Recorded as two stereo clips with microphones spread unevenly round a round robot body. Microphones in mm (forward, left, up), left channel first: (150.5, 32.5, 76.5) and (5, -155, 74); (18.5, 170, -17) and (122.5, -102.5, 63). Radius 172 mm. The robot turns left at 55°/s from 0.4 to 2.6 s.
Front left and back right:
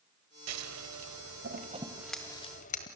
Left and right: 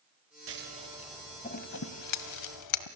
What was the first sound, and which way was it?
Scissors, 125° right.